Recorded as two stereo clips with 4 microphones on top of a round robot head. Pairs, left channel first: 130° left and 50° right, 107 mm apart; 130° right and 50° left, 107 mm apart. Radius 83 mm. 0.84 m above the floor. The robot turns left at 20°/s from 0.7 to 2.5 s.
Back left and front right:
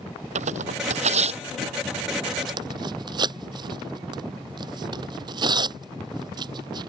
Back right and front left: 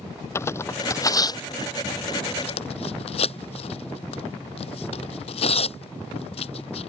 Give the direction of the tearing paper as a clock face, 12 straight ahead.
2 o'clock.